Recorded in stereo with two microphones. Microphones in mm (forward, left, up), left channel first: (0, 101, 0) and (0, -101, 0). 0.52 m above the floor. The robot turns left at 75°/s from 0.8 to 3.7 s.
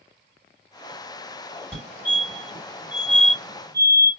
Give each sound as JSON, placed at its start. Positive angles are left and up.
{"t": 1.7, "sound": "a fire alarm", "side_deg": 5, "distance_m": 2.0}